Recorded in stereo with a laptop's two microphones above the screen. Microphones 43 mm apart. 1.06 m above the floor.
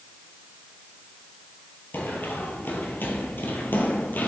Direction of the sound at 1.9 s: 55° left (ahead or behind).